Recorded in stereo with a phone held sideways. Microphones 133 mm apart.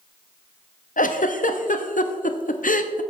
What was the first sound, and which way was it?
A giggle, 80° left.